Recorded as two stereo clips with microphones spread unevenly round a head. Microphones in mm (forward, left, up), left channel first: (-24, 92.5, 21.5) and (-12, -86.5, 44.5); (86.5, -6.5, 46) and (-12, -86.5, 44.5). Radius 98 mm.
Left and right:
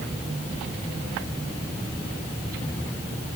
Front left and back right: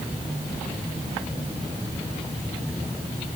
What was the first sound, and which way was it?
Only background noise.